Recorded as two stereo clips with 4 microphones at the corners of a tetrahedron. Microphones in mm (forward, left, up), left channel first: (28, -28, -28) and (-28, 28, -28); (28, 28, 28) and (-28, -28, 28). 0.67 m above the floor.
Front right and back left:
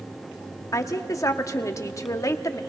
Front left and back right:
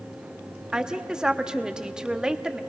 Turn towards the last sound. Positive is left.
turn(degrees=-60)